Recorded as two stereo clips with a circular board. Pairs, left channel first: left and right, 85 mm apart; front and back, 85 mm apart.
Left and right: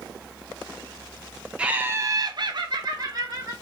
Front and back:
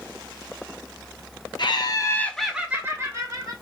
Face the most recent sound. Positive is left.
turn(degrees=-135)